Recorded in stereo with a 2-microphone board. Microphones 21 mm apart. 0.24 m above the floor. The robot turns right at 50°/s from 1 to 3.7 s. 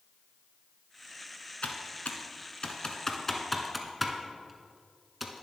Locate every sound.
1.6 s typing on a keyboard: 70° left (ahead or behind), 1.1 m; by 5.4 s 5° right (ahead or behind), 1.1 m